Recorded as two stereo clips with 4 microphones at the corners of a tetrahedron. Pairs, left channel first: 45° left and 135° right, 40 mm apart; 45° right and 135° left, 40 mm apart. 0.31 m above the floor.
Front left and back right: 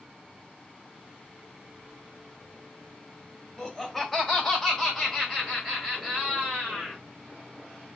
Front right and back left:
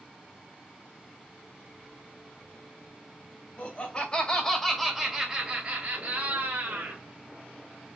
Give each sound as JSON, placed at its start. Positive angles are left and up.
{"t": 3.6, "sound": "laughter", "azimuth_deg": -35, "distance_m": 1.8}